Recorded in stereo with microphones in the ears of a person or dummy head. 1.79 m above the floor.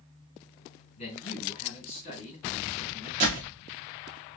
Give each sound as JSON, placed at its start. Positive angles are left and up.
{"t": 1.0, "sound": "a man speaking", "side_deg": 35, "distance_m": 2.5}
{"t": 3.2, "sound": "a door slam", "side_deg": -30, "distance_m": 0.9}